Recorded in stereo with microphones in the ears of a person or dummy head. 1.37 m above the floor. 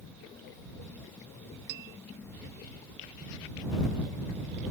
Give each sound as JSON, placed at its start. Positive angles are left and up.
{"t": 1.7, "sound": "a bell", "side_deg": -55}